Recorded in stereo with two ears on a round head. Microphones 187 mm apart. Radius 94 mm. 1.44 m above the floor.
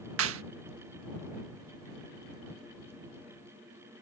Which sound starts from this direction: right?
A clap, at 0.2 s.